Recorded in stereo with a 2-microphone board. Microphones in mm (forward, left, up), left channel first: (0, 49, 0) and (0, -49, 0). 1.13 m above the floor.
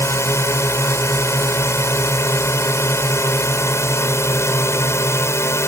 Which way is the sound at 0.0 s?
30° left (ahead or behind).